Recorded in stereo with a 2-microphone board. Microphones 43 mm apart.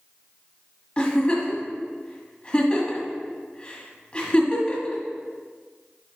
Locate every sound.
1.0 s a giggle: 25° left (ahead or behind), 1.5 m